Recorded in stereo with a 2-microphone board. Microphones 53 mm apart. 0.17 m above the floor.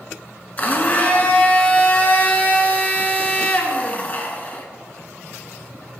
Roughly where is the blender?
Left.